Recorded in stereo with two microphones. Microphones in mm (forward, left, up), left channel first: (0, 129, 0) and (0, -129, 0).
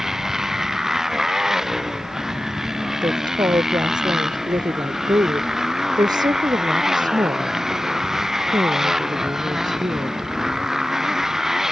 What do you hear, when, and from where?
0.0 s a motorcycle: centre (ahead or behind)
3.0 s a woman speaking: 15° right (ahead or behind)